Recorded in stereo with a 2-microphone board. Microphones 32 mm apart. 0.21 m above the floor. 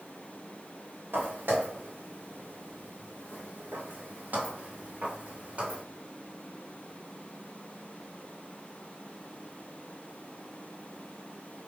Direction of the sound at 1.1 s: 75° right (ahead or behind).